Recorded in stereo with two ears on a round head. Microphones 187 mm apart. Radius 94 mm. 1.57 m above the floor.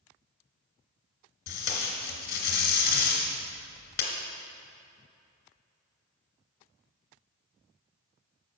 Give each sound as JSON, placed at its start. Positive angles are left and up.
{"t": 1.5, "sound": "tape being pulled", "side_deg": 50, "distance_m": 2.5}